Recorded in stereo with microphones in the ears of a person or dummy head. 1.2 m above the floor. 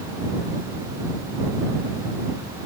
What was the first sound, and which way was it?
Only background noise.